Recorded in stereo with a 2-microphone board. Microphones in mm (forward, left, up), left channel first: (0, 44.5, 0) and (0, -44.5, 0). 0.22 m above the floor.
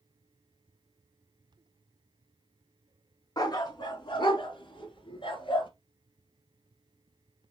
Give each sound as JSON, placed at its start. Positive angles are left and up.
{"t": 3.4, "sound": "a dog barking", "side_deg": 45, "distance_m": 0.9}